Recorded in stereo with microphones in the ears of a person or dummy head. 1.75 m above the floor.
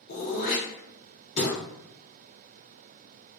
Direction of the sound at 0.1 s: 40° left (ahead or behind).